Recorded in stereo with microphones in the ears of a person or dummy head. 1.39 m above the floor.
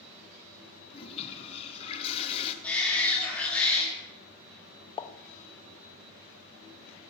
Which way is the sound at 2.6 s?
5° left (ahead or behind).